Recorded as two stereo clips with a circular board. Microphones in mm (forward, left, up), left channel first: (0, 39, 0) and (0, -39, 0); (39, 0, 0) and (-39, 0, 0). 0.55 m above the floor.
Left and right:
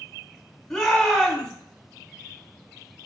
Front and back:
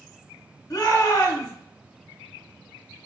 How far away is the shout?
About 1.1 m.